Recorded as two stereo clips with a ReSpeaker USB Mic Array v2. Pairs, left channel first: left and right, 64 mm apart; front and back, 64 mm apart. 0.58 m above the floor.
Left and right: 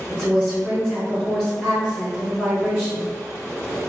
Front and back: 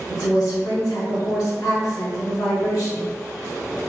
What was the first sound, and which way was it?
A woman speaking, 15° left.